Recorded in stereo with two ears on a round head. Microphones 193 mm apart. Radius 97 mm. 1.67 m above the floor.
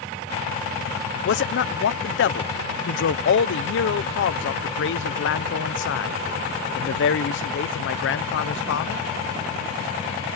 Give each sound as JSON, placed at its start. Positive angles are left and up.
{"t": 1.2, "sound": "a man speaking", "side_deg": 60}